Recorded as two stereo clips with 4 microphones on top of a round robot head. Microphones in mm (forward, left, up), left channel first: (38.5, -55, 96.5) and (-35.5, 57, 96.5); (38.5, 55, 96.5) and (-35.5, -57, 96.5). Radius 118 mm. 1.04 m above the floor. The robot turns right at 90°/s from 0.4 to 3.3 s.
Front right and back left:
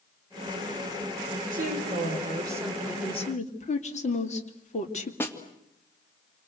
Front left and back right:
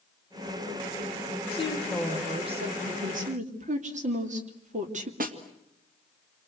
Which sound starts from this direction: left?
A woman speaking, at 1.5 s.